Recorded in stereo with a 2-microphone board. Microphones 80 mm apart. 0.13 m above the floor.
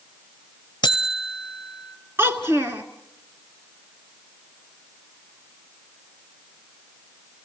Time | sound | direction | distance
0.8 | a buzzer | 75° left (ahead or behind) | 0.5 m
2.2 | a child speaking | 30° right (ahead or behind) | 1.5 m